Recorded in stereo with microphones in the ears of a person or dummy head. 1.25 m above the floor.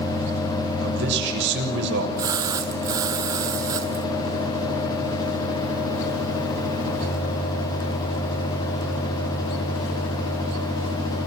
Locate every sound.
0.8 s a man speaking: 65° right (ahead or behind), 6.5 m
2.2 s a splash: 10° right (ahead or behind), 0.8 m